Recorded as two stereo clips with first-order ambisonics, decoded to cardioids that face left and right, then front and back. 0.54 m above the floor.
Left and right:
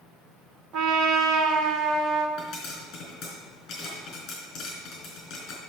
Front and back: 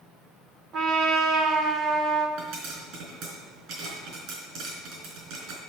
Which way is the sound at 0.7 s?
125° right.